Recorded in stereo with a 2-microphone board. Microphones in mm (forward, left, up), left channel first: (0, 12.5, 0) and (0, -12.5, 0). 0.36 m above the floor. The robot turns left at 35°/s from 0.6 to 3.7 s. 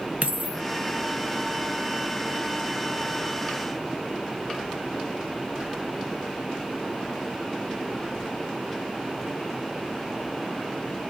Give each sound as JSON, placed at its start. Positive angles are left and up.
{"t": 0.2, "sound": "a dropped coin", "side_deg": -60, "distance_m": 0.5}